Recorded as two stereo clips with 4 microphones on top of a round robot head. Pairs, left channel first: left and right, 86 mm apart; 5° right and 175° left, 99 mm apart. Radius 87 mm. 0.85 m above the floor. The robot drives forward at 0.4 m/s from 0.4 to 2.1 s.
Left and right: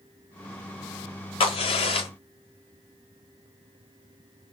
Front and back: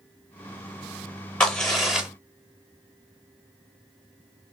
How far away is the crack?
About 1.0 m.